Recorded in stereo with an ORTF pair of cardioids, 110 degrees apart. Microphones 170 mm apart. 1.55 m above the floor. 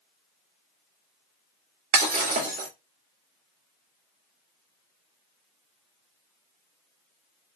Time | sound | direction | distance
1.9 | breaking glass | 65° right | 2.5 m